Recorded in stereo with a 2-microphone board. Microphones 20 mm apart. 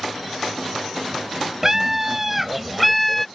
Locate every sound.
1.6 s a scream: 15° right (ahead or behind); by 3.3 s 15° left (ahead or behind)